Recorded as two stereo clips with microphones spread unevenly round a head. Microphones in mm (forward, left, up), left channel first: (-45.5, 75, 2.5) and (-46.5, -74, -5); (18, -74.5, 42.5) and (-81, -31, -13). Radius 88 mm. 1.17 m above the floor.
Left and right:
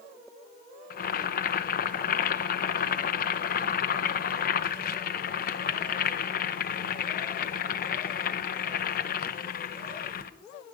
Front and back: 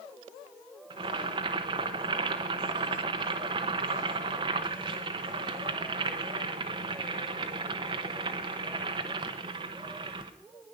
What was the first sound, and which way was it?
Boiling, 115° left.